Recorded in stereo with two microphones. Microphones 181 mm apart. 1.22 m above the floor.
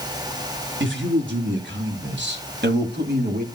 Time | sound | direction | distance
0.8 | a man speaking | 80° right | 4 m